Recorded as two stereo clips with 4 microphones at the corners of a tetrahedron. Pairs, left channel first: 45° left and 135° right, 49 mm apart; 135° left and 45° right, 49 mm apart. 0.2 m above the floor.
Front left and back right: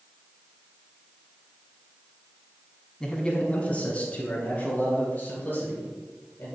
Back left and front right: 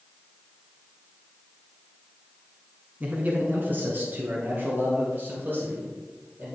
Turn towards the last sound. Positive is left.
turn(degrees=0)